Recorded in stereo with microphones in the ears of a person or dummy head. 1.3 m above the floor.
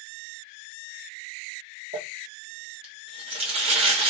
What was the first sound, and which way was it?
Crumpling, 30° right (ahead or behind).